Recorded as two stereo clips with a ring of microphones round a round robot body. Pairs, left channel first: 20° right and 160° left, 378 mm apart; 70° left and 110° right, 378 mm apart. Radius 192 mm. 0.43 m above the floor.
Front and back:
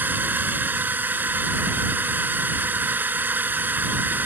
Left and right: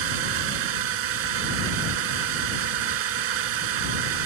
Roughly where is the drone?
Behind right.